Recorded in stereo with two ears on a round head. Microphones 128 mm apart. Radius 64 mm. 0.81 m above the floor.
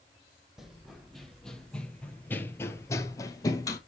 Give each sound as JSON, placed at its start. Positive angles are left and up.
{"t": 0.6, "sound": "running footsteps", "side_deg": 0, "distance_m": 1.5}